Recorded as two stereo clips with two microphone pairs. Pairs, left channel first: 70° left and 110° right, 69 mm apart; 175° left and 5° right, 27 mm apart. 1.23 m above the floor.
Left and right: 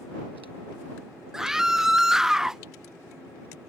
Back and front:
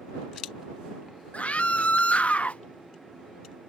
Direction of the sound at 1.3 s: 165° left.